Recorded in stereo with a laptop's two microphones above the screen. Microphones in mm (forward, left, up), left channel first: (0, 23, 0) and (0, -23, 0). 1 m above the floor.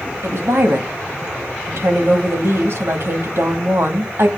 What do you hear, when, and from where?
0.2 s a woman speaking: 65° right (ahead or behind), 2 m